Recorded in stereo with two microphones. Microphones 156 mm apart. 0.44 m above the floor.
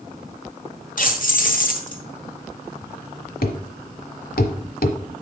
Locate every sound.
1.0 s keys jangling: 60° left (ahead or behind), 1.4 m
3.4 s a thud: 75° left (ahead or behind), 0.9 m